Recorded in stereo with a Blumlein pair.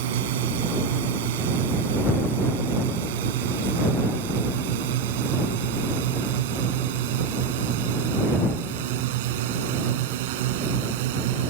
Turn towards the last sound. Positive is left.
turn(degrees=-50)